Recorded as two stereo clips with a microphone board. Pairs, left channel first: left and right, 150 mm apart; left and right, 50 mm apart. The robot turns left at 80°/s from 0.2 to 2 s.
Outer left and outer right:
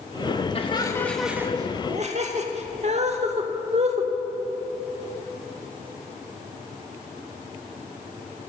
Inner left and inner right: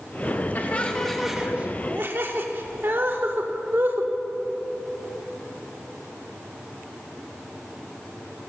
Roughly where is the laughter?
Left.